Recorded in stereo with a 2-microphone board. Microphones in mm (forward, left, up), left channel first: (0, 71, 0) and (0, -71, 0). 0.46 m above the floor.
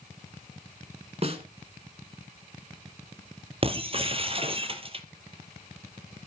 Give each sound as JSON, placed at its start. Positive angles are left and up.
{"t": 1.2, "sound": "a snare drum", "side_deg": -45, "distance_m": 1.9}
{"t": 3.6, "sound": "breaking glass", "side_deg": -40, "distance_m": 1.3}